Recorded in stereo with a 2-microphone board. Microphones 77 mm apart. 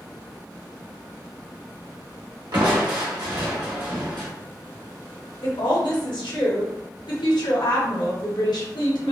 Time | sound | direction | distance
2.5 | crushing | 75° right (ahead or behind) | 1.0 m
5.4 | a woman speaking | 80° left | 1.1 m